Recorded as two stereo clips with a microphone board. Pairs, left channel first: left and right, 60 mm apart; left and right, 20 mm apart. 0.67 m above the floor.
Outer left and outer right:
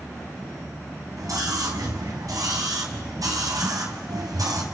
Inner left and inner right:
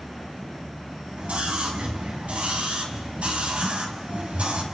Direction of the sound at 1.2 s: 70° right (ahead or behind).